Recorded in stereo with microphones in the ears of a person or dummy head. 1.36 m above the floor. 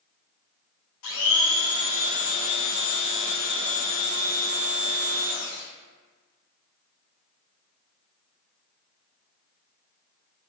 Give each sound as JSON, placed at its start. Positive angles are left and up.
{"t": 1.0, "sound": "a blender", "side_deg": 75, "distance_m": 0.6}